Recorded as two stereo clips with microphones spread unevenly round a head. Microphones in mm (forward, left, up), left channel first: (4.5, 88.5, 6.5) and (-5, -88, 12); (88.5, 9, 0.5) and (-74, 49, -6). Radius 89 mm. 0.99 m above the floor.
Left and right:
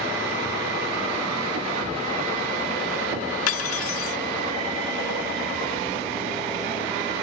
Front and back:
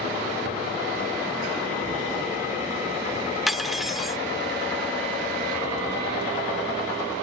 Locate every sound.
3.5 s cutlery clinking: 75° left